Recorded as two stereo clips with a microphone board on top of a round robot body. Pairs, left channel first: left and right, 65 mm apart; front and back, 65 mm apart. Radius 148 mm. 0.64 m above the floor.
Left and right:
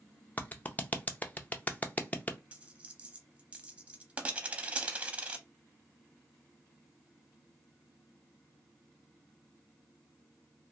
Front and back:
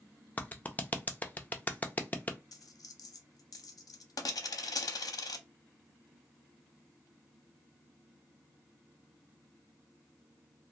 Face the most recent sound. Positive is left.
turn(degrees=-20)